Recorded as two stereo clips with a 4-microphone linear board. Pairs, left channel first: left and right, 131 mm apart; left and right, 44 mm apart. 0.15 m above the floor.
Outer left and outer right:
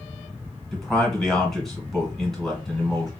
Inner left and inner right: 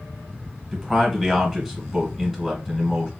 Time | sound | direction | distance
0.7 | a man speaking | centre (ahead or behind) | 1.3 m